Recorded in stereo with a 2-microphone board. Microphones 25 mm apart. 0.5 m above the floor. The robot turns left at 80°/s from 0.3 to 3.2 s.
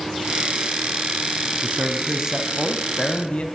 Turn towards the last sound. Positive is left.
turn(degrees=130)